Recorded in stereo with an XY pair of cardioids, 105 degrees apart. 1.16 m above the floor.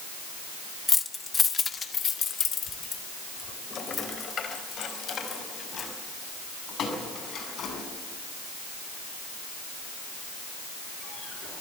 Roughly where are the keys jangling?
Ahead.